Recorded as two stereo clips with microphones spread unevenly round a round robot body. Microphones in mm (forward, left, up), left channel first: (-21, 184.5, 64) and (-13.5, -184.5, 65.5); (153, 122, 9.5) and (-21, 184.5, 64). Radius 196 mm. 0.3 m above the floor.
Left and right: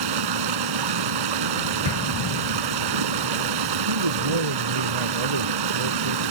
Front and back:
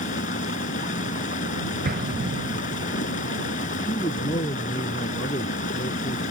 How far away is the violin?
I don't hear a violin.